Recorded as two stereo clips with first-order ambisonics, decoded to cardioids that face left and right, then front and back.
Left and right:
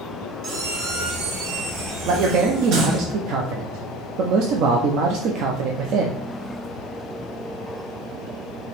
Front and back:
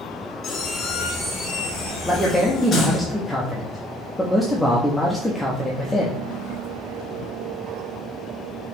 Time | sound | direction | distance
0.4 | a squeak | 65° right | 0.9 m
2.0 | a man speaking | 85° right | 0.5 m